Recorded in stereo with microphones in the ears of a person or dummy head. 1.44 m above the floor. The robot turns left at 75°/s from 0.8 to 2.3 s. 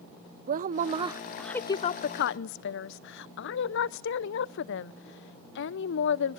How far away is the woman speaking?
About 0.6 m.